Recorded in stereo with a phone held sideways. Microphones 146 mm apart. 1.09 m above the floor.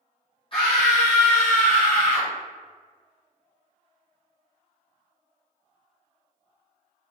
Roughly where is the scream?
Left.